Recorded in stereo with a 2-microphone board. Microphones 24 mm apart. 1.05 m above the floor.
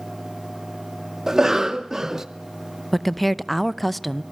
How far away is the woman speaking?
About 0.6 m.